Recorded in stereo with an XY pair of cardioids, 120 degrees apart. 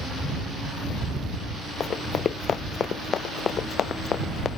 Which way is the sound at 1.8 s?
40° left.